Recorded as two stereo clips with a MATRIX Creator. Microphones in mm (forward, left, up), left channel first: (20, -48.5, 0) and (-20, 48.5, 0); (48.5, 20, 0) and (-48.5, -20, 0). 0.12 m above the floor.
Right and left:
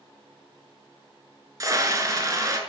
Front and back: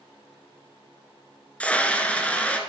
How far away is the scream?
About 1.3 m.